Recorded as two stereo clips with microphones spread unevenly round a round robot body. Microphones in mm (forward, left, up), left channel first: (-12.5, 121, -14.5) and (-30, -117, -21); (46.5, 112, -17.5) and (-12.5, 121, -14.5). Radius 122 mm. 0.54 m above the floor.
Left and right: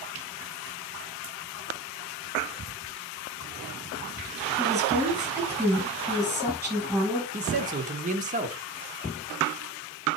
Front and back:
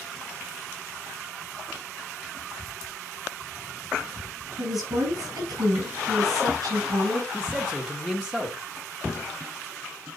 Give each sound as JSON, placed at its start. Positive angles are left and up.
{"t": 4.6, "sound": "a woman speaking", "azimuth_deg": -175, "distance_m": 5.5}
{"t": 7.3, "sound": "a man speaking", "azimuth_deg": -90, "distance_m": 0.9}